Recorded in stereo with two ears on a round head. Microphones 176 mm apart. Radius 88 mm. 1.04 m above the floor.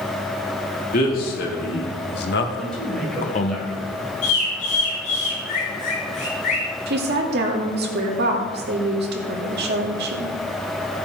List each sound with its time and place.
0.9 s a man speaking: 45° left (ahead or behind), 2.5 m; by 3.6 s 30° left (ahead or behind), 1.2 m
2.6 s a man speaking: 5° left (ahead or behind), 4.5 m
4.2 s a bird: 40° left (ahead or behind), 4.5 m
6.9 s a woman speaking: 55° right (ahead or behind), 2.5 m